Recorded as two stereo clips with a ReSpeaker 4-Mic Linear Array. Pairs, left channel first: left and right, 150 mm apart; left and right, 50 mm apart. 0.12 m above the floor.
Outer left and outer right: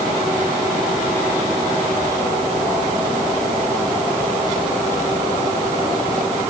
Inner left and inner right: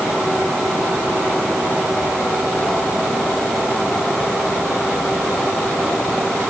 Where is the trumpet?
I don't hear a trumpet.